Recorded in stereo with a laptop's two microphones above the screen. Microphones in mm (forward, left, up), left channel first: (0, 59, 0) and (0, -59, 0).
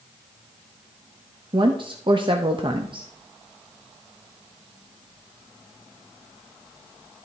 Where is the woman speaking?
45° right (ahead or behind), 0.8 m.